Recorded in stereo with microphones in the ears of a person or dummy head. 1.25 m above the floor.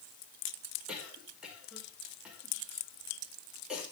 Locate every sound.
0.9 s a cough: 10° right (ahead or behind), 5 m